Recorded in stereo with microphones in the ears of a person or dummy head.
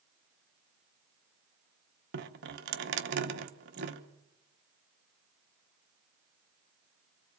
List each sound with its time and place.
2.1 s dripping: 60° right (ahead or behind), 1.2 m